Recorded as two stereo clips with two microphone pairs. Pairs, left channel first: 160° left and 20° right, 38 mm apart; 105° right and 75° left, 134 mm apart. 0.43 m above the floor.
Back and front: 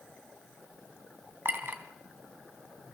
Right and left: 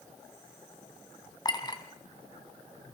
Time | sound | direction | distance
1.4 | a clink | 45° right | 2 m